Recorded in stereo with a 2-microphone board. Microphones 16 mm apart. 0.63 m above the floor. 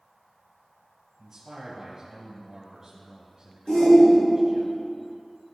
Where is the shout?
60° left (ahead or behind), 2.0 m.